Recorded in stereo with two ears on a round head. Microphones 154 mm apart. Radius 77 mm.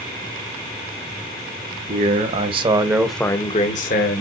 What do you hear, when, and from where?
1.9 s a man speaking: 50° right (ahead or behind), 1.7 m; by 4.2 s 65° left (ahead or behind), 1.3 m